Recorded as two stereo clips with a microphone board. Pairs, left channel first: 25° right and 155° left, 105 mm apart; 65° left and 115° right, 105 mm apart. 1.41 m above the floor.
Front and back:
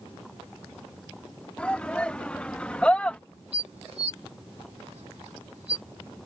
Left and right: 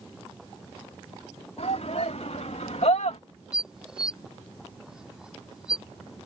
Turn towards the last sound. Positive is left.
turn(degrees=165)